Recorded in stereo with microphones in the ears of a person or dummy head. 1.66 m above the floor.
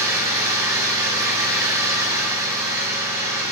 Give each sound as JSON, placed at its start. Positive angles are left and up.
{"t": 0.0, "sound": "an engine running", "side_deg": -10, "distance_m": 9.5}